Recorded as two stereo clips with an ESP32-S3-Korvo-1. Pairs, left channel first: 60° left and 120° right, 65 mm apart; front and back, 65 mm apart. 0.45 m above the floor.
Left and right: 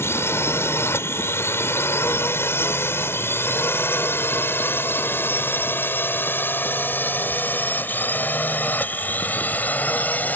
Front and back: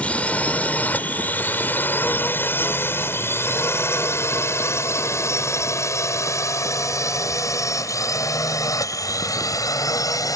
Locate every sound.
0.0 s a drone: 55° left; by 10.4 s straight ahead